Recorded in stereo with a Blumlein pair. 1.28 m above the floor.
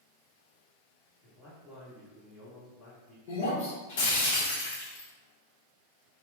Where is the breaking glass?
60° left, 1.2 m.